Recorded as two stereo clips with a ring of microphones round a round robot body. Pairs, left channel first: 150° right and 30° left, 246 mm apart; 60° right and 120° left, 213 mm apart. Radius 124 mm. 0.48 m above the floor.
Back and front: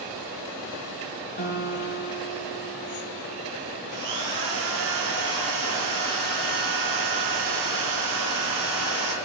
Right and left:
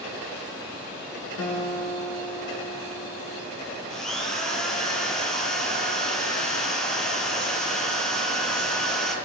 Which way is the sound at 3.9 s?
30° left.